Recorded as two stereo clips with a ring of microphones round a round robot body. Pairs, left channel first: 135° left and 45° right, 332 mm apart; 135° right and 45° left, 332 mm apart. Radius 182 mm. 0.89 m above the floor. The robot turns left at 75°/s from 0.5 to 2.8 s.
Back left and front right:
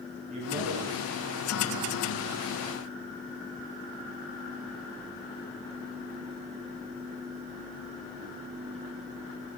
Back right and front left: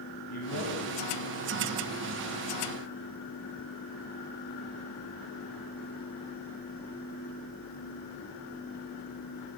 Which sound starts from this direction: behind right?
A man speaking, at 0.3 s.